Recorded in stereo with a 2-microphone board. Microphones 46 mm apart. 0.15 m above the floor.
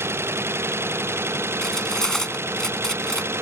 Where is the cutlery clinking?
15° left (ahead or behind).